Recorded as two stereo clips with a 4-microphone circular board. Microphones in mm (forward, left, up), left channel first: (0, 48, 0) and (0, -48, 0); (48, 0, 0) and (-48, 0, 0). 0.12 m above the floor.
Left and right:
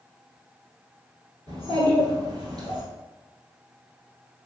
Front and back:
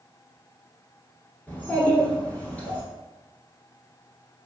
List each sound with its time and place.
1.5 s a child speaking: 70° right, 1.3 m